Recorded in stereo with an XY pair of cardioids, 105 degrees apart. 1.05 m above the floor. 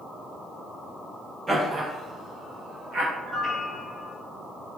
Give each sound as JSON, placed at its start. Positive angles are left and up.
{"t": 1.5, "sound": "laughter", "azimuth_deg": -30, "distance_m": 0.8}
{"t": 3.2, "sound": "a piano", "azimuth_deg": -25, "distance_m": 0.7}